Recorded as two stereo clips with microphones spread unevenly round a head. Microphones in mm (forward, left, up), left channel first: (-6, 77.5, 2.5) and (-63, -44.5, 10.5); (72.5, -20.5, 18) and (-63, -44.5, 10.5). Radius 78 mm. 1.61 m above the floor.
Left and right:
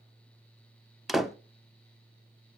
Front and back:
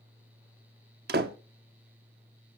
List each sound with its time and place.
1.1 s a door slam: 160° left, 1.1 m